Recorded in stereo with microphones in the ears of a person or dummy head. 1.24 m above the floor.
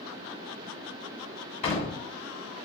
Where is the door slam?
35° left (ahead or behind), 3 m.